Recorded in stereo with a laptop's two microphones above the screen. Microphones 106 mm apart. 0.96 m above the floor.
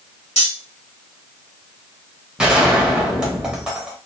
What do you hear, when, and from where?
0.4 s cutlery clinking: 80° left, 1.1 m
2.4 s a gunshot: 5° right (ahead or behind), 0.9 m